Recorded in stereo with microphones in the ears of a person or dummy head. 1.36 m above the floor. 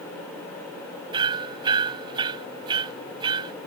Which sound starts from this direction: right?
Hammering, at 1.1 s.